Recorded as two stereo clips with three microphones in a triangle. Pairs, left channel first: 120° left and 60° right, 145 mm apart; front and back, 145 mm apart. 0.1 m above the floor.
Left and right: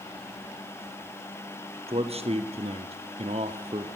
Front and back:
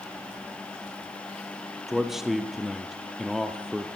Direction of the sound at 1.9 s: 95° right.